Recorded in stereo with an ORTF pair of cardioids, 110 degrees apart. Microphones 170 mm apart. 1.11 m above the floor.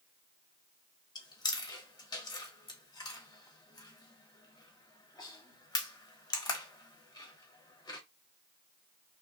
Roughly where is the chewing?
Ahead left.